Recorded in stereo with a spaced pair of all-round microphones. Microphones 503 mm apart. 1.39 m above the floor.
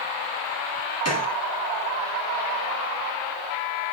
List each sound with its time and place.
1.1 s a gunshot: 30° left (ahead or behind), 1.3 m